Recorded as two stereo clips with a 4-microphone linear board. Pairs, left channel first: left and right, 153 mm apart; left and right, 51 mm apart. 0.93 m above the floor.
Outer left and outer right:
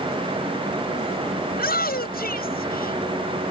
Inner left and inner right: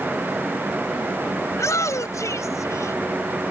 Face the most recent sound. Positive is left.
turn(degrees=80)